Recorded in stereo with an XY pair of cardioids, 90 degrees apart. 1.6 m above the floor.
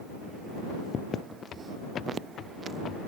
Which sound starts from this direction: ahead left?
Footsteps, at 1.5 s.